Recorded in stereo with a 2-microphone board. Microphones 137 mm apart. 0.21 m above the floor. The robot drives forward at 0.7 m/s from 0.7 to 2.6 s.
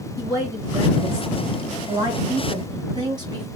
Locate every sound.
0.2 s a woman speaking: 25° right (ahead or behind), 2 m; by 3.5 s 30° right (ahead or behind), 1.7 m